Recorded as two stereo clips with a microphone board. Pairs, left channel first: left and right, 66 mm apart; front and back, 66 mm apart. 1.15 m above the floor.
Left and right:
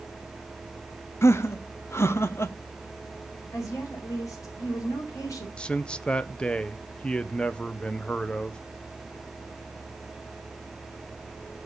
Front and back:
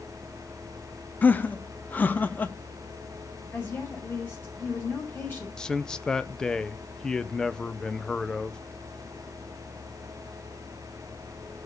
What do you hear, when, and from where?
1.2 s laughter: 60° left, 0.8 m
3.5 s a woman speaking: 55° left, 4.5 m
5.6 s a man speaking: 60° left, 0.5 m